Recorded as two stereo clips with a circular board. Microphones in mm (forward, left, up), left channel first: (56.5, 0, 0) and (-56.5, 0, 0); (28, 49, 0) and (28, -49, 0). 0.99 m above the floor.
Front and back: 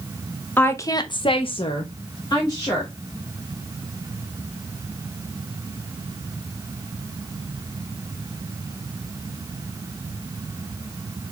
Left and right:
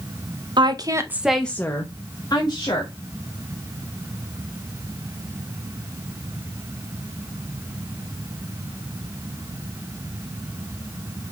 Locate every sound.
0.6 s a woman speaking: 70° right, 0.6 m; by 2.9 s 50° left, 1.4 m